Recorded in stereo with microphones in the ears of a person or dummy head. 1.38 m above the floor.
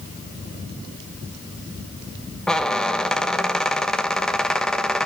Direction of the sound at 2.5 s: Centre (ahead or behind).